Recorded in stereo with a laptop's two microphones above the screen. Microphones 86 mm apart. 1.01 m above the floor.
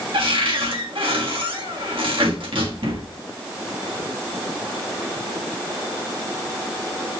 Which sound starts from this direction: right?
A cupboard door, at 0.1 s.